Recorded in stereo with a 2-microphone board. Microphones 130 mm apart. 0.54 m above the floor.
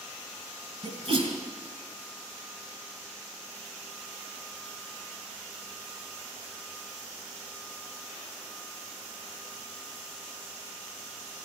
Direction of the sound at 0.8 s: 55° right (ahead or behind).